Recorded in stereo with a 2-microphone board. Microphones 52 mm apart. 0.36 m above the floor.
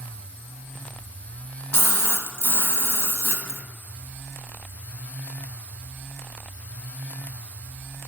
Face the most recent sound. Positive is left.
turn(degrees=50)  # may be behind; listen again after turning